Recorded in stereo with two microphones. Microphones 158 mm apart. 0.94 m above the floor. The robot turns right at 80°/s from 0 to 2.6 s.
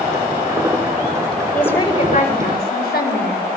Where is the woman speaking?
5° left, 5 m; by 3.5 s 90° left, 5 m.